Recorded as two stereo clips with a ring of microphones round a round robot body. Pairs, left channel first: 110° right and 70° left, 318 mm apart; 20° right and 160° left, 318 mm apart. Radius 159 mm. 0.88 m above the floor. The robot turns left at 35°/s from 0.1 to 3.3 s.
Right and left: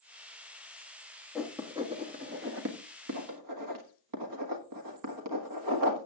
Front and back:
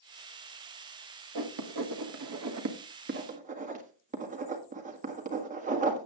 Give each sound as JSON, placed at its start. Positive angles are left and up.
{"t": 1.4, "sound": "writing", "azimuth_deg": 160, "distance_m": 1.6}